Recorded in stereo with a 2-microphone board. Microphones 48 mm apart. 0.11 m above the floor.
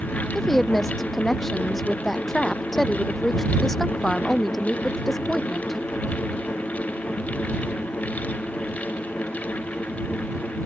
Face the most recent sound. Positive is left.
turn(degrees=0)  # may be behind; listen again after turning